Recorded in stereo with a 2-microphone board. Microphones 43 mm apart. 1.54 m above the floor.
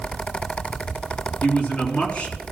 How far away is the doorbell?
No doorbell in this recording.